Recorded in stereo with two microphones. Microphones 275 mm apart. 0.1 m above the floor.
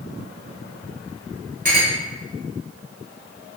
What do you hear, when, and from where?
1.6 s a clink: 30° right (ahead or behind), 0.8 m